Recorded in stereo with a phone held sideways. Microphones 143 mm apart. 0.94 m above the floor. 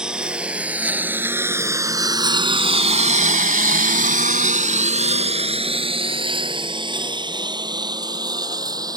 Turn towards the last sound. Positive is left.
turn(degrees=-25)  # may be behind; listen again after turning